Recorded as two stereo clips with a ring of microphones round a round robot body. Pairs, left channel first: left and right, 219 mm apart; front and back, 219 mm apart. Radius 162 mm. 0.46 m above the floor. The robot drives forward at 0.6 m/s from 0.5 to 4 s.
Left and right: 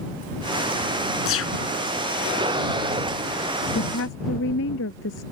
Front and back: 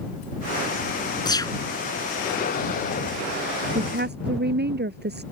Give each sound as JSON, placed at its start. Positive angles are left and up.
{"t": 1.2, "sound": "a gunshot", "azimuth_deg": 70}
{"t": 3.8, "sound": "a woman speaking", "azimuth_deg": 140}